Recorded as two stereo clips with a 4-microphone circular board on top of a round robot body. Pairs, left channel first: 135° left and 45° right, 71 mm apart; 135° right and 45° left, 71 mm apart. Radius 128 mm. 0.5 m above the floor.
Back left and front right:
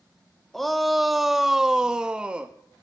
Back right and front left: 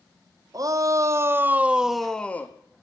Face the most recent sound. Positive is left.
turn(degrees=-105)